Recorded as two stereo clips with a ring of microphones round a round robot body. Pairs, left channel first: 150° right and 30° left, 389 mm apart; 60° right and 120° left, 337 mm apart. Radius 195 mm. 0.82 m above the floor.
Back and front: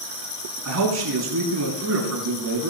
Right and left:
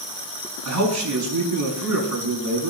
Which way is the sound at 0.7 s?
80° left.